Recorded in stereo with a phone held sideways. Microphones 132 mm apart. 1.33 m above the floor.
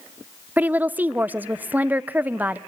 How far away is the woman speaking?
About 0.6 m.